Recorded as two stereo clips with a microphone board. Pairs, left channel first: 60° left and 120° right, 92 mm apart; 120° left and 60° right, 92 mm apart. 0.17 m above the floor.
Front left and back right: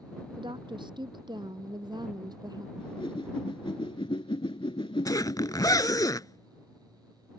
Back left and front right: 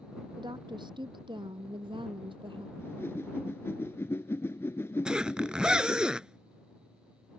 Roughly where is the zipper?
Ahead.